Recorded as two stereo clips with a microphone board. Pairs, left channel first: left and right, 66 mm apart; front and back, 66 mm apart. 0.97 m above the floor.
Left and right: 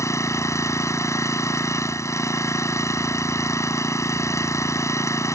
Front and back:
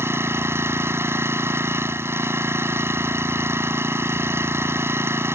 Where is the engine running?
130° left.